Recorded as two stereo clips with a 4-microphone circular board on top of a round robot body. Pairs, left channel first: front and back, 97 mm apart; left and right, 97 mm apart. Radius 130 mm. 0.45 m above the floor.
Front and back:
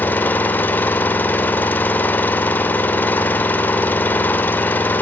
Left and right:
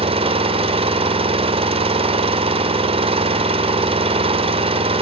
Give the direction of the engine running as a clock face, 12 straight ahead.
2 o'clock.